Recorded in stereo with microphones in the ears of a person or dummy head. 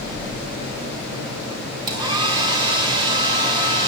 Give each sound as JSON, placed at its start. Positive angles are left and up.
{"t": 1.9, "sound": "a hair dryer", "side_deg": -25, "distance_m": 1.8}